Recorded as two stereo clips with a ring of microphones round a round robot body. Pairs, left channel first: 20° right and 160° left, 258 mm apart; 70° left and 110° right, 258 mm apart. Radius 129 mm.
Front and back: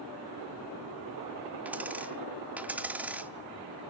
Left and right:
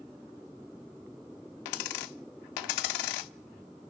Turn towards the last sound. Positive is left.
turn(degrees=75)